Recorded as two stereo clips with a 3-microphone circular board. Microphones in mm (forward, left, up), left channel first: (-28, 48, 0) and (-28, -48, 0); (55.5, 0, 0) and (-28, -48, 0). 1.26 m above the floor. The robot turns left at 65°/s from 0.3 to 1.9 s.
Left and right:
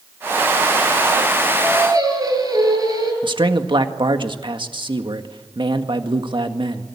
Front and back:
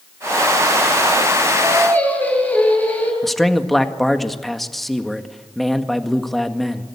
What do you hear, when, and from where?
1.5 s singing: 20° right, 10 m; by 3.1 s 40° right, 10 m
3.2 s a man speaking: 60° right, 1.7 m